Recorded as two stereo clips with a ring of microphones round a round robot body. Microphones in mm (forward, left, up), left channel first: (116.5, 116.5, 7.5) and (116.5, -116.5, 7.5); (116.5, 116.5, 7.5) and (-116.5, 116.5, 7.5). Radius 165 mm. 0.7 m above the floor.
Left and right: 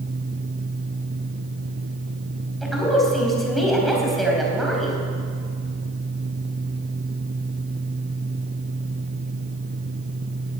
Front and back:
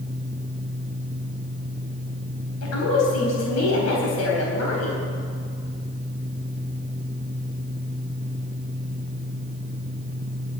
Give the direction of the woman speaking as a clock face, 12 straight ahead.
12 o'clock.